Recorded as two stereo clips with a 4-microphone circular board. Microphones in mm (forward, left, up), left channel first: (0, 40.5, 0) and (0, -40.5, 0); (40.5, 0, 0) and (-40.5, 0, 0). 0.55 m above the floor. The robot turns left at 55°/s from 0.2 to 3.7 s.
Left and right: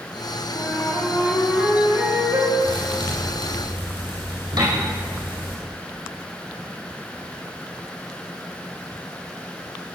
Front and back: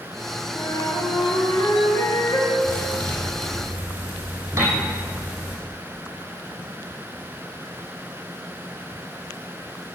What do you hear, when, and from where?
0.5 s a flute: 50° left, 3.5 m; by 2.5 s 55° right, 3.5 m
2.6 s a thud: 50° right, 6 m; by 5.6 s 110° right, 6 m
4.6 s a piano: 120° right, 5 m